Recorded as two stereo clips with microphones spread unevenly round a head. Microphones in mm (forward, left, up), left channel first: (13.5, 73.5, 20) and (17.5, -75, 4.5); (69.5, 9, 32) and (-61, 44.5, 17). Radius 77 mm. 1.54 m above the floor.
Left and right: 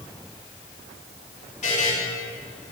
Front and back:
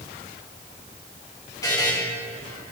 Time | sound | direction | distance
1.6 | a buzzer | 50° left | 2.5 m